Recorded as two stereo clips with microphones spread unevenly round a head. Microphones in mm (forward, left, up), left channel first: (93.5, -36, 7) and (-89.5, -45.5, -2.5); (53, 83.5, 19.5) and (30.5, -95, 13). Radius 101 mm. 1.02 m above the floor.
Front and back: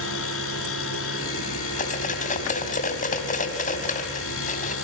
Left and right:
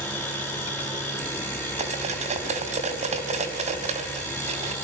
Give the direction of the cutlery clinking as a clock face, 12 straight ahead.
1 o'clock.